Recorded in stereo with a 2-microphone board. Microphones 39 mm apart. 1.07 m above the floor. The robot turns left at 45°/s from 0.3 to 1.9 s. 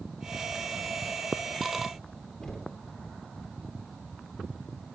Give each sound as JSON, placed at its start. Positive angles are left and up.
{"t": 2.4, "sound": "knocking", "side_deg": 15, "distance_m": 2.5}